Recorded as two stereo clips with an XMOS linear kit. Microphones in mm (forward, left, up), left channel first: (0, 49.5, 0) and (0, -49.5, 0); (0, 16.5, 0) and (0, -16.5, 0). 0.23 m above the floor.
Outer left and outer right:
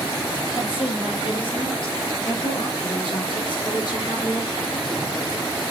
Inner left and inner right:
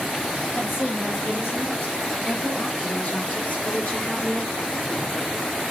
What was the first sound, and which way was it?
A woman speaking, 60° left (ahead or behind).